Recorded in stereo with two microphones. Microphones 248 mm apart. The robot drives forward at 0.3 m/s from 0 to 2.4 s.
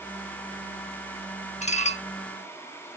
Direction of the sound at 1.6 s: 25° left (ahead or behind).